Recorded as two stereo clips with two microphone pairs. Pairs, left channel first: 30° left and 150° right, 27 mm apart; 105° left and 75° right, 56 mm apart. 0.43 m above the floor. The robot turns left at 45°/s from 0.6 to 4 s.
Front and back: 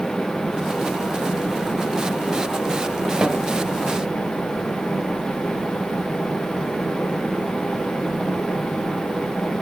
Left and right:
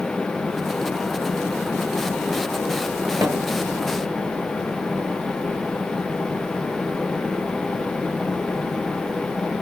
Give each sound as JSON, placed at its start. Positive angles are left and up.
{"t": 3.2, "sound": "a snare drum", "azimuth_deg": -100, "distance_m": 0.8}